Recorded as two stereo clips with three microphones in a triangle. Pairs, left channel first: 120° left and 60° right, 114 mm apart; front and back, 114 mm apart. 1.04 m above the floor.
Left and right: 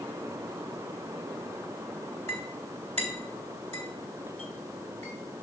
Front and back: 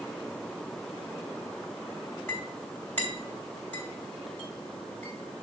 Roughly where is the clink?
Right.